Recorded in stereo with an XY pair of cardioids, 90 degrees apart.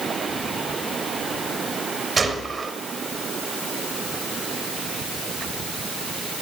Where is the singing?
No singing in this recording.